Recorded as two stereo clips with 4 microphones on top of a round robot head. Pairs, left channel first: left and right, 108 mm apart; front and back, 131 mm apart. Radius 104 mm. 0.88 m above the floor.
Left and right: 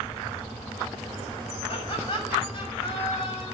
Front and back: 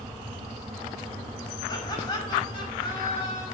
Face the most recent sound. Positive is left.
turn(degrees=45)